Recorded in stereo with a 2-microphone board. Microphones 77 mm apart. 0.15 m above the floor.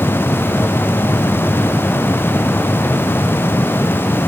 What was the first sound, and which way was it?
Only background noise.